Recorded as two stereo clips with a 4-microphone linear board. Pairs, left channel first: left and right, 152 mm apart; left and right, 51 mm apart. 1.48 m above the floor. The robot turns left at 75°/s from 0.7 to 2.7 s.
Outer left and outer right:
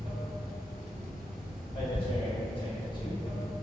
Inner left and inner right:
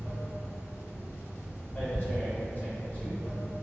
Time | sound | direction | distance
0.0 | running water | 100° right | 1.6 m
1.8 | tearing paper | 35° left (ahead or behind) | 0.8 m